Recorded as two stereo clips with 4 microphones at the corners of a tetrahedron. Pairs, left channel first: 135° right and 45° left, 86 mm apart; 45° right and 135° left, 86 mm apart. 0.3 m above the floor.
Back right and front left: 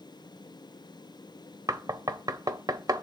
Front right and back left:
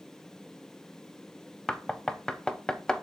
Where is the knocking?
30° left, 0.7 m.